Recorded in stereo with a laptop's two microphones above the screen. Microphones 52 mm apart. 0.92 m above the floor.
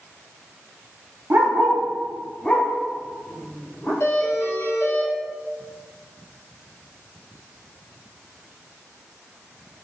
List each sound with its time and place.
1.3 s a dog barking: 45° right (ahead or behind), 0.6 m; by 3.9 s 40° left (ahead or behind), 1.8 m
4.0 s a doorbell: 55° left (ahead or behind), 1.5 m